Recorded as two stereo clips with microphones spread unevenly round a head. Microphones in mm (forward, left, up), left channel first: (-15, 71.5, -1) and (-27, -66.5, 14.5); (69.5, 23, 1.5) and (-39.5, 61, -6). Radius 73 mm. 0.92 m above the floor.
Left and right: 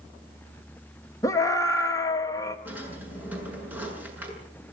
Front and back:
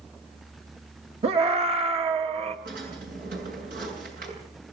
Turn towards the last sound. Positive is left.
turn(degrees=-170)